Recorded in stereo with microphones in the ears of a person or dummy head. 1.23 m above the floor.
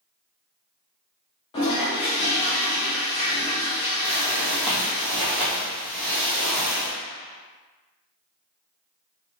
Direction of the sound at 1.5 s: 25° left (ahead or behind).